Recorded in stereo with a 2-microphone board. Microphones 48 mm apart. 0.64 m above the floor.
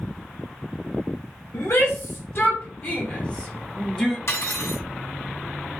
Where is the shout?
55° left (ahead or behind), 1.8 m; by 4.2 s 5° left (ahead or behind), 1.5 m.